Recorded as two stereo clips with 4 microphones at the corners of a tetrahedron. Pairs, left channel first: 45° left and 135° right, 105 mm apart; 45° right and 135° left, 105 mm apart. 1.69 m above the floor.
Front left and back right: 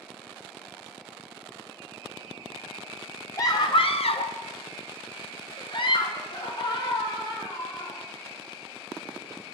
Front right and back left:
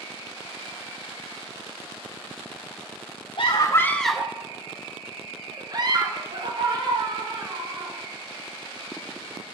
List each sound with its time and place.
3.4 s a scream: 10° right, 0.7 m; by 8.0 s 95° left, 3.5 m